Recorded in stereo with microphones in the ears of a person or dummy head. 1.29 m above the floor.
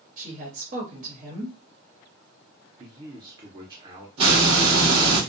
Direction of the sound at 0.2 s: 40° right (ahead or behind).